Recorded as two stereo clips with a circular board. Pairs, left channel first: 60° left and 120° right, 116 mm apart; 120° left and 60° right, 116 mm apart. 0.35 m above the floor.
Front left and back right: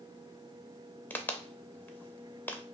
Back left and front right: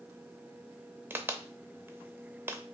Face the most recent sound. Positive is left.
turn(degrees=-5)